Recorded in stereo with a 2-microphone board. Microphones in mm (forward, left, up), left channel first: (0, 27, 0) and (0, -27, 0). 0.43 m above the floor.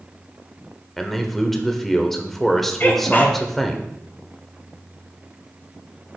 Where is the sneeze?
40° left (ahead or behind), 1.8 m.